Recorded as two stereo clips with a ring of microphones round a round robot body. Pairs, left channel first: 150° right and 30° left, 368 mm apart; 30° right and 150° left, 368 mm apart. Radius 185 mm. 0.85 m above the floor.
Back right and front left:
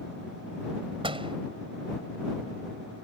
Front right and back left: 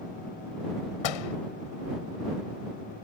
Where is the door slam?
45° right.